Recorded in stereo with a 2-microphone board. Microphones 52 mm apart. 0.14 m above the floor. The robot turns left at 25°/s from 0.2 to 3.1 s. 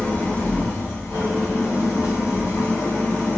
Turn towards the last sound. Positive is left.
turn(degrees=60)